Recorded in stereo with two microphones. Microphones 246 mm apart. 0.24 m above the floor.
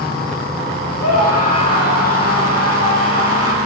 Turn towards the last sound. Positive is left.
turn(degrees=75)  # may be behind; listen again after turning